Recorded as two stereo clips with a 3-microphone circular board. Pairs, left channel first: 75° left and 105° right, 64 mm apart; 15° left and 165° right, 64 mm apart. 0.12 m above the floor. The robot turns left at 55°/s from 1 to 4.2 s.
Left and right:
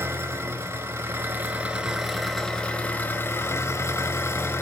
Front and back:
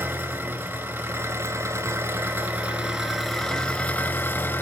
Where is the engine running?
130° right, 1.5 m; by 4.6 s 50° left, 1.5 m.